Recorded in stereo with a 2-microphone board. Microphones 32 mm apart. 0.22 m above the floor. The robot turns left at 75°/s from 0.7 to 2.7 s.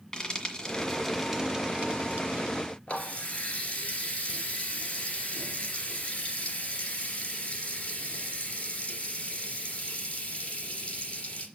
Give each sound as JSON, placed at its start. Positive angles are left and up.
{"t": 0.1, "sound": "frying", "side_deg": 20, "distance_m": 1.9}
{"t": 2.9, "sound": "a running tap", "side_deg": 40, "distance_m": 2.5}